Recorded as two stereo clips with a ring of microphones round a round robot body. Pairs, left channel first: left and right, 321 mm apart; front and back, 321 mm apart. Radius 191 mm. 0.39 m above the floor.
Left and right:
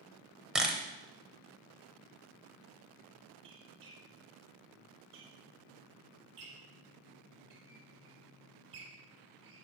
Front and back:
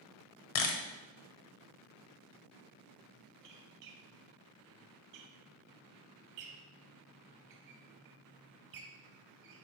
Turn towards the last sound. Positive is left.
turn(degrees=-150)